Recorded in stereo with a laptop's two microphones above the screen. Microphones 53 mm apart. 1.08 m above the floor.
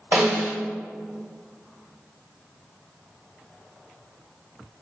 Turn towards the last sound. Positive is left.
turn(degrees=-50)  # may be behind; listen again after turning